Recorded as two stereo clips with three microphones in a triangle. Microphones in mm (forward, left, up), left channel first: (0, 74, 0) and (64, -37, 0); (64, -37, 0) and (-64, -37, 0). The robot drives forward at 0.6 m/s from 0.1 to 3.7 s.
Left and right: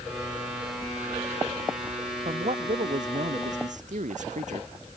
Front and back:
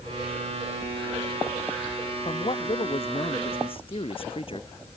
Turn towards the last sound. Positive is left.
turn(degrees=-45)